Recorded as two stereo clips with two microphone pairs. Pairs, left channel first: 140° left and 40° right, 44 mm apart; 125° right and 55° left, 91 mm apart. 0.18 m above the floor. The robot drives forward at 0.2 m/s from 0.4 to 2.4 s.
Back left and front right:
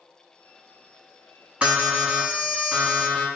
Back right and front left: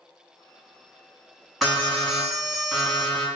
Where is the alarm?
35° right, 1.1 m; by 3.3 s 45° right, 1.1 m.